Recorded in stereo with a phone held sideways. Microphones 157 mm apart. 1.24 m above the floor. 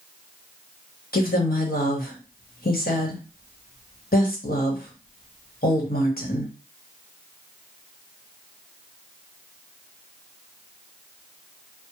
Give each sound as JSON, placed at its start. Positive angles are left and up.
{"t": 1.1, "sound": "a woman speaking", "side_deg": 70, "distance_m": 1.2}